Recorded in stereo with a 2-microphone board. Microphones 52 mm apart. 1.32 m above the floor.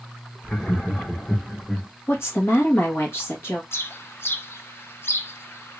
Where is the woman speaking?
50° left (ahead or behind), 1.6 m.